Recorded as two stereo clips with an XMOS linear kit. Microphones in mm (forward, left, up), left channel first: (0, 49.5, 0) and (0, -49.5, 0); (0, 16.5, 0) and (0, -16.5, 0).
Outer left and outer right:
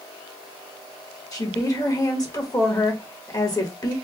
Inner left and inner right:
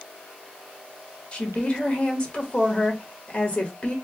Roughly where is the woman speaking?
Left.